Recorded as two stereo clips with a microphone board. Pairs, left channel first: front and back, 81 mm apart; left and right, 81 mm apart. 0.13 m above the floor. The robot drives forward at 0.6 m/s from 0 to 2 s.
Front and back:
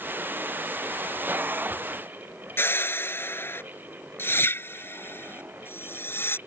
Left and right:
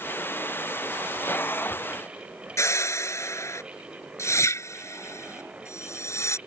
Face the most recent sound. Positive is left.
turn(degrees=50)